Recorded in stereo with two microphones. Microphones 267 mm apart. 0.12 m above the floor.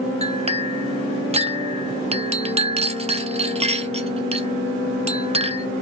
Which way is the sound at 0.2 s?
20° right (ahead or behind).